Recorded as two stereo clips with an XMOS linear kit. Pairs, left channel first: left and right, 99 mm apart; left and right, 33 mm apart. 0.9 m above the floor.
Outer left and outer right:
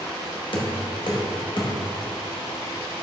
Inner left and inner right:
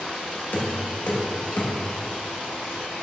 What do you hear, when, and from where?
0.5 s knocking: 55° left (ahead or behind), 1.1 m